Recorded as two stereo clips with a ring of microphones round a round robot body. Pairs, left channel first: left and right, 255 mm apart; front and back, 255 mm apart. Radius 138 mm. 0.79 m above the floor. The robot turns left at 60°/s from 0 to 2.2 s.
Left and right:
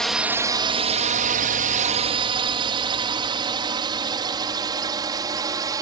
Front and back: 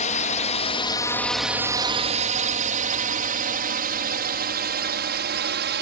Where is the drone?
5° left; by 5.8 s 160° right.